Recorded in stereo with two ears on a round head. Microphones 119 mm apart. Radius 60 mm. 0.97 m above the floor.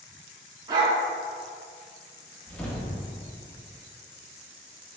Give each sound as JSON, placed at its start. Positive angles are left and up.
{"t": 0.7, "sound": "a dog barking", "side_deg": -30, "distance_m": 0.7}
{"t": 2.5, "sound": "a whoosh", "side_deg": 10, "distance_m": 0.7}